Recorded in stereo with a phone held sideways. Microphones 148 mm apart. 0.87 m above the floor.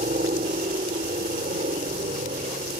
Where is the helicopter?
65° right (ahead or behind).